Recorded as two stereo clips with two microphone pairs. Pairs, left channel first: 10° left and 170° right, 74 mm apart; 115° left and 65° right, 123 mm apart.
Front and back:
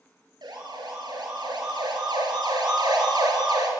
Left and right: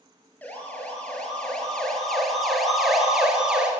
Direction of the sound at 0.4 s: 170° right.